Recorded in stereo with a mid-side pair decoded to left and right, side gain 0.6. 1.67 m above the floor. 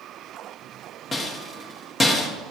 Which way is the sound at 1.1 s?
25° left.